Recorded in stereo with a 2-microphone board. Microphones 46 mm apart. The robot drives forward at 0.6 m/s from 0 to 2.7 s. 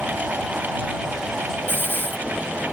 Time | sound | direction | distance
1.7 | a hiss | 50° left (ahead or behind) | ?